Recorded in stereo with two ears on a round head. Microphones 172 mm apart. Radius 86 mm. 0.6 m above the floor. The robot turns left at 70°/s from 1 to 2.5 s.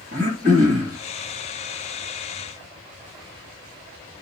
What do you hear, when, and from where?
0.1 s throat clearing: 45° right (ahead or behind), 2.5 m